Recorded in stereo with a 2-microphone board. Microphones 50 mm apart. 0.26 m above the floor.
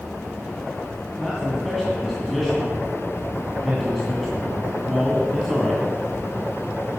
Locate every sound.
1.2 s a man speaking: centre (ahead or behind), 2 m